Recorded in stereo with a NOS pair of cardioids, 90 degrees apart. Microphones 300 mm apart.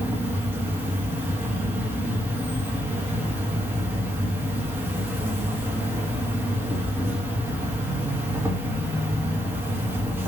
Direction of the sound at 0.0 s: 5° right.